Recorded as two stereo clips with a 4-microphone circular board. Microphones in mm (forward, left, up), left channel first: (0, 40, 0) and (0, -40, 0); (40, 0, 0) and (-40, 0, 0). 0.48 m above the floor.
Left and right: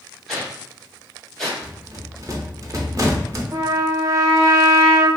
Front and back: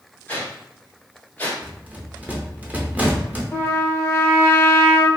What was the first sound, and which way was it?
A whoosh, 10° left.